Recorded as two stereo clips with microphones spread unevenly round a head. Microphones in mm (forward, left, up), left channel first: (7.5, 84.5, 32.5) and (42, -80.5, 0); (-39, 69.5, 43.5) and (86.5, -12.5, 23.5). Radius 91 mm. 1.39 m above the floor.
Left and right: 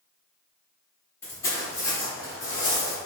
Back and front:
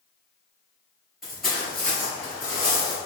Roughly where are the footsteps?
Ahead left.